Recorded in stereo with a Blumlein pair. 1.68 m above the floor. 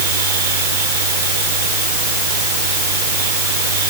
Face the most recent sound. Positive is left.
turn(degrees=-60)